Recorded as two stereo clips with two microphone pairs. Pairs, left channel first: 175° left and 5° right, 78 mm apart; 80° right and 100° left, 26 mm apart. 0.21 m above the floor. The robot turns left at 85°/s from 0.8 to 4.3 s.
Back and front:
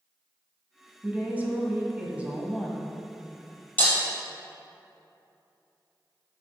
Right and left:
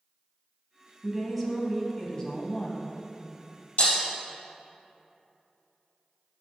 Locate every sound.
1.0 s a woman speaking: 50° left, 1.4 m; by 2.9 s 110° right, 1.4 m
3.8 s breaking glass: 120° right, 3 m; by 4.0 s 140° right, 3 m